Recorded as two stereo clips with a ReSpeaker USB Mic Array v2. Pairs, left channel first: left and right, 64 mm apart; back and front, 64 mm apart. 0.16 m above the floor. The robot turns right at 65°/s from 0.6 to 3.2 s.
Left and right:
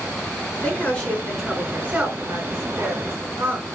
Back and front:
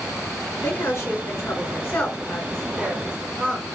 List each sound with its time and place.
0.6 s a woman speaking: 140° left, 2 m; by 3.7 s 55° right, 2 m